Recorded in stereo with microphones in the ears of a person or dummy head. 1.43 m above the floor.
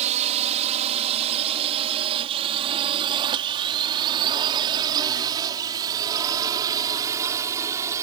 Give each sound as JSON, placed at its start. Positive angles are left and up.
{"t": 0.0, "sound": "a drone", "side_deg": -40}